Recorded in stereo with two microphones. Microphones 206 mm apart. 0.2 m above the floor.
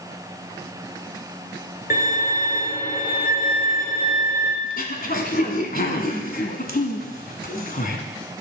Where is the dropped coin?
I don't hear a dropped coin.